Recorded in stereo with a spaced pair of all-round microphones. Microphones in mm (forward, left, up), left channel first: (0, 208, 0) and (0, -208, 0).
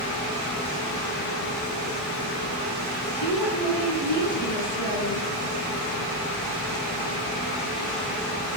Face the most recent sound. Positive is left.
turn(degrees=85)